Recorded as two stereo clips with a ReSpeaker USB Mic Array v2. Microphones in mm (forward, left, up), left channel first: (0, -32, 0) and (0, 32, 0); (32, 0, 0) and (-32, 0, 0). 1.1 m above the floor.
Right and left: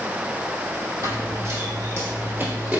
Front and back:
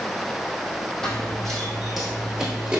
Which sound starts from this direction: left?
Running footsteps, at 1.0 s.